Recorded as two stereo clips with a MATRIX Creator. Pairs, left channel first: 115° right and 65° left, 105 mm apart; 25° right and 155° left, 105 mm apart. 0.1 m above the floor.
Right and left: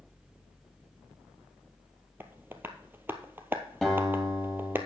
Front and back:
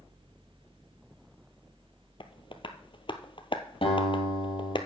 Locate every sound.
2.2 s tapping: straight ahead, 0.9 m
3.8 s a guitar: 25° right, 3.5 m